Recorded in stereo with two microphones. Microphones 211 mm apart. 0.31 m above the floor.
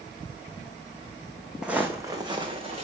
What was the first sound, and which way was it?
Footsteps, 5° right (ahead or behind).